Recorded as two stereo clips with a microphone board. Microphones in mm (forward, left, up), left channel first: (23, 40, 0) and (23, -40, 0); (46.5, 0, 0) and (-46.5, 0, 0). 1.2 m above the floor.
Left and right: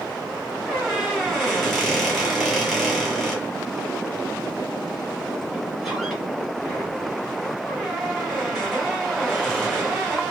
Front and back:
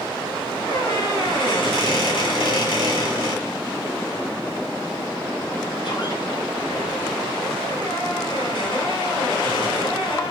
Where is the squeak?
Straight ahead, 1.9 m.